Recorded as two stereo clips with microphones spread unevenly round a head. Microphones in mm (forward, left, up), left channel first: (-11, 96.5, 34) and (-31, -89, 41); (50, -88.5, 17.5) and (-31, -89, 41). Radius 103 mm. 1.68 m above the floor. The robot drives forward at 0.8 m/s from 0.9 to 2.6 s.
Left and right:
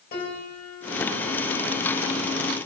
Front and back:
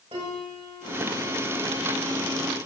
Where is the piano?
125° left, 6 m; by 2.5 s 135° left, 7 m.